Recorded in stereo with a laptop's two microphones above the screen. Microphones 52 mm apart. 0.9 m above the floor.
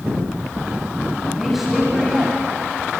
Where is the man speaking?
5° right (ahead or behind), 6.5 m.